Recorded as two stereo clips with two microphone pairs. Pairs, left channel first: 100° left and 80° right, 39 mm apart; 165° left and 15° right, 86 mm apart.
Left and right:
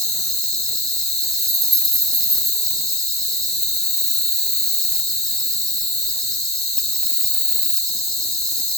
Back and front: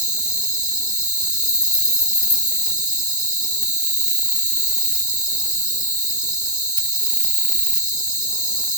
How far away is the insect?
About 1.2 m.